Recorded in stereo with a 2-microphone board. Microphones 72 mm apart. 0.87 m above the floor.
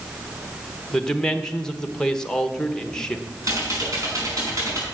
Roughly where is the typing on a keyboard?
Right.